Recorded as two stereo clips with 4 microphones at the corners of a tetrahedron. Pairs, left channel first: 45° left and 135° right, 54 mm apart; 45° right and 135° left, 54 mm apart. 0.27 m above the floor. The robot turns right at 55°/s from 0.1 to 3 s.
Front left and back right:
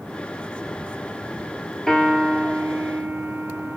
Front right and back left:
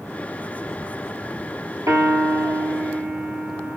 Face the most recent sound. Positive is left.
turn(degrees=-170)